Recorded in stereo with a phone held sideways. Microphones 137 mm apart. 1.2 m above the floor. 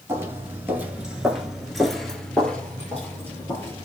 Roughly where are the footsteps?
Centre.